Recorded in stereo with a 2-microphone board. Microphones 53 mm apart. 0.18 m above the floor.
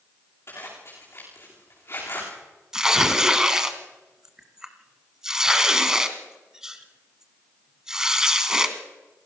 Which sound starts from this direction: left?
A zipper, at 0.5 s.